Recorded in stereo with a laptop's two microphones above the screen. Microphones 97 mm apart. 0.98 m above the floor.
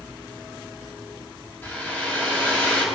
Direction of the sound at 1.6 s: 20° left (ahead or behind).